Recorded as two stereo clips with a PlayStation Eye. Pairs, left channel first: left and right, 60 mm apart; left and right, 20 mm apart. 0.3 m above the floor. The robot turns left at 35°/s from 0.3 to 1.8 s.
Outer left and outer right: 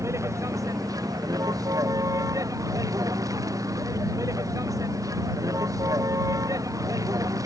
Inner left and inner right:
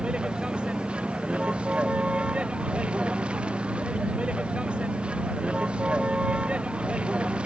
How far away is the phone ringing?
I don't hear a phone ringing.